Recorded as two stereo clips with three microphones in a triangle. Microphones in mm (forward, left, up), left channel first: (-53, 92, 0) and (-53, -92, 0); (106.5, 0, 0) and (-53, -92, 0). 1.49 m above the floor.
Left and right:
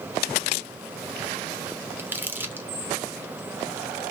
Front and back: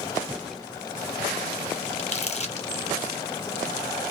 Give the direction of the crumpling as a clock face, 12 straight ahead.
12 o'clock.